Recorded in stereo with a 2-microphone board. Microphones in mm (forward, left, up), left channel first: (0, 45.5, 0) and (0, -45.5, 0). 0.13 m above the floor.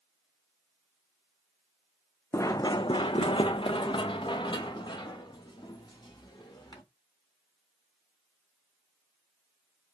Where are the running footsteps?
30° left (ahead or behind), 0.5 m; by 6.8 s 45° left (ahead or behind), 2 m.